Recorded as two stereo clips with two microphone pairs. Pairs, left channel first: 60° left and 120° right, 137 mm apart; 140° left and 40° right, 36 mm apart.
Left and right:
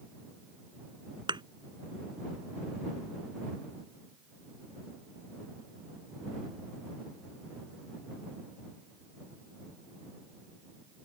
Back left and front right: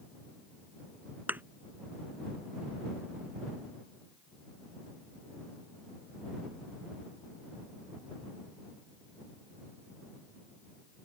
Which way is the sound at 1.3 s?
65° right.